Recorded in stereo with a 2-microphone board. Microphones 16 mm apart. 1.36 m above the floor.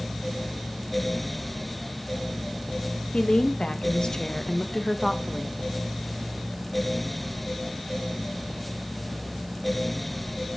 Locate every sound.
3.1 s a woman speaking: 80° left, 1.6 m; by 5.5 s 5° right (ahead or behind), 1.3 m